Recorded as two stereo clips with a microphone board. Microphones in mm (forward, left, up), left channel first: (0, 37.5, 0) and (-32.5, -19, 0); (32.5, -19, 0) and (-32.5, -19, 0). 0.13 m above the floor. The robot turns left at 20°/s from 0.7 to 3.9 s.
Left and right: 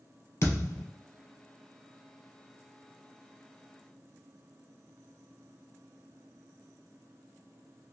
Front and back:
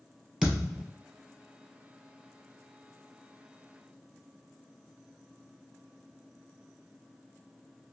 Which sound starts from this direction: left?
A thud, at 0.4 s.